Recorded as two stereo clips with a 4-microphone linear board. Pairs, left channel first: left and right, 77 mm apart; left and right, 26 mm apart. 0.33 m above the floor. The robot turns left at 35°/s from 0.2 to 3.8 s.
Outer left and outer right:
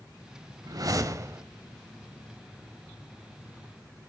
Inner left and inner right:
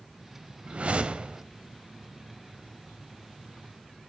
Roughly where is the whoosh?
Right.